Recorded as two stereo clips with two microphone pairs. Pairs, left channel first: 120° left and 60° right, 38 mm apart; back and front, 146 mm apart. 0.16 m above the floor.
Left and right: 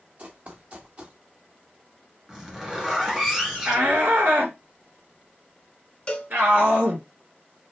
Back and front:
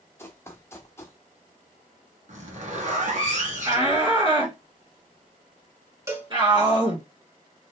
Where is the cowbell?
60° left, 1.4 m.